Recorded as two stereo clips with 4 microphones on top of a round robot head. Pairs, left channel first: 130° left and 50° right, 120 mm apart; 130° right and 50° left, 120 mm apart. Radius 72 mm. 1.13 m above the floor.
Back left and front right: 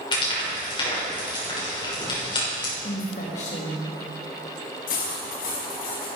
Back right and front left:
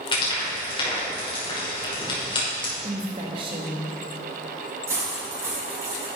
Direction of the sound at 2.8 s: 100° left.